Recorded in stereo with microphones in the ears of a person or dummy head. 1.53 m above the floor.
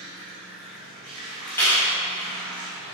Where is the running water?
35° right (ahead or behind), 1.0 m.